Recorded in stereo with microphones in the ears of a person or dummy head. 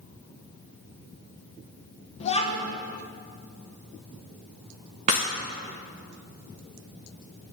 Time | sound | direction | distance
2.2 | a child speaking | 30° left (ahead or behind) | 1.1 m
5.1 | breaking glass | 25° right (ahead or behind) | 1.0 m